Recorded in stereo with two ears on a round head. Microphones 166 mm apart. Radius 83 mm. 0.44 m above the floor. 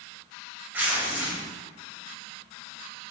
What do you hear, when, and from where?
0.7 s tearing paper: 10° right (ahead or behind), 2.5 m